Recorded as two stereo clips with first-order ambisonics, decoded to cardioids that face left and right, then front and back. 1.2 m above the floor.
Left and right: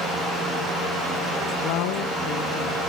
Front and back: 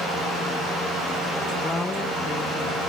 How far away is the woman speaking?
About 0.8 m.